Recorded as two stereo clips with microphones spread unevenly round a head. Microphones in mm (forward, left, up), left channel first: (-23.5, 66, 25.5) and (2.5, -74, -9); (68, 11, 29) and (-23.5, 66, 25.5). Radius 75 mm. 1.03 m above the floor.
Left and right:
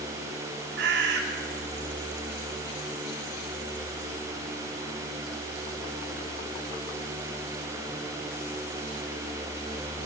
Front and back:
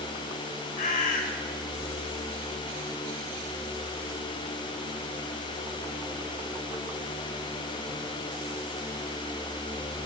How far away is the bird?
About 1.4 m.